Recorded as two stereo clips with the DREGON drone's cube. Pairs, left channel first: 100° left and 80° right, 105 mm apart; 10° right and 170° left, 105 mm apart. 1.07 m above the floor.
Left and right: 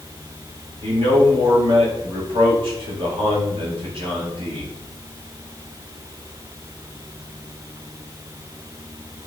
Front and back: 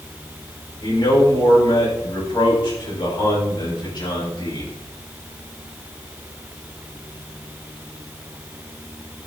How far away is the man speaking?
About 5 m.